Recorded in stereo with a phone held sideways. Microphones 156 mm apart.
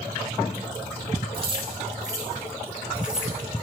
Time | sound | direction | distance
1.3 | keys jangling | 35° right (ahead or behind) | 3 m